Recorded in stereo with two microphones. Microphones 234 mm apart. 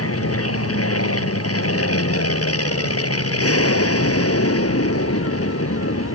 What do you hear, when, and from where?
0.0 s an aircraft: 70° left (ahead or behind)